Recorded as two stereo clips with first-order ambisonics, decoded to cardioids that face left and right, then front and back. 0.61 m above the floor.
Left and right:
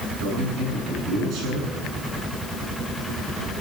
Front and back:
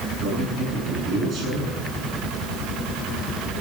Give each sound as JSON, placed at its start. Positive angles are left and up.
{"t": 0.2, "sound": "a man speaking", "azimuth_deg": -125, "distance_m": 9.0}